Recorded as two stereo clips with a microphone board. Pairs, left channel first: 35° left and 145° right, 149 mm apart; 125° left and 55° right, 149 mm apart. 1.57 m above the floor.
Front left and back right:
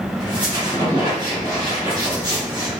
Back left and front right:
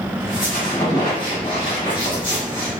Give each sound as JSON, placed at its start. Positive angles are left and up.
{"t": 0.2, "sound": "a squeak", "azimuth_deg": 160, "distance_m": 1.5}